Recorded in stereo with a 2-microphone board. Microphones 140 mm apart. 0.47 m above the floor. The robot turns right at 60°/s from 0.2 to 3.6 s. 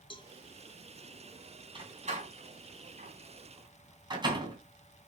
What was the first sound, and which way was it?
A cowbell, 35° left (ahead or behind).